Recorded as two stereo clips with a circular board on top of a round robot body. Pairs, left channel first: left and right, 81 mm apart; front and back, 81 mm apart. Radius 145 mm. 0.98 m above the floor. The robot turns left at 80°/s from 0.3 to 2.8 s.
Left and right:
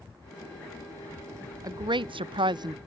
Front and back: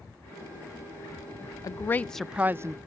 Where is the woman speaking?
45° right; by 2.8 s 135° right.